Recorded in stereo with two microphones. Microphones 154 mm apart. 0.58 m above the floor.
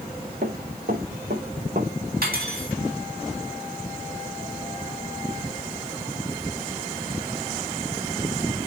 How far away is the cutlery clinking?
About 3 m.